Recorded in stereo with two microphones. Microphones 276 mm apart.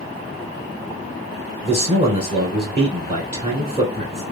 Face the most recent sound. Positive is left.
turn(degrees=-20)  # may be behind; listen again after turning